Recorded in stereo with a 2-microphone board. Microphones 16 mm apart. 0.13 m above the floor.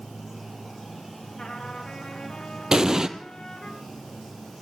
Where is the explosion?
40° right (ahead or behind), 1.3 m.